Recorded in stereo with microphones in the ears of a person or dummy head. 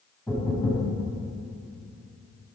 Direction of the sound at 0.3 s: 15° left (ahead or behind).